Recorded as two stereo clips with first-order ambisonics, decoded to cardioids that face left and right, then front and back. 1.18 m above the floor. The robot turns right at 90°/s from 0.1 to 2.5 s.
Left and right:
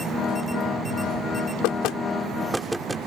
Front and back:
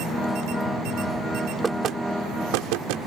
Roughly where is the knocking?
Left.